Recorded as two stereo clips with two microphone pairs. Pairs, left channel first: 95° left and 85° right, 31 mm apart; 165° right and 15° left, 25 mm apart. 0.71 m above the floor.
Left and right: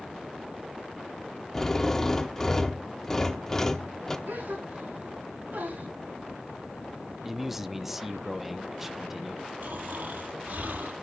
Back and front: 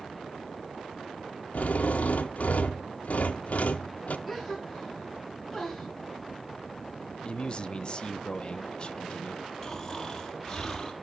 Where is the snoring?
95° right, 4.5 m.